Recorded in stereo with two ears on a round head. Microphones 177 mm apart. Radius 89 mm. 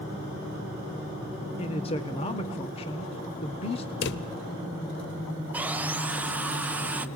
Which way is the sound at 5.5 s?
10° right (ahead or behind).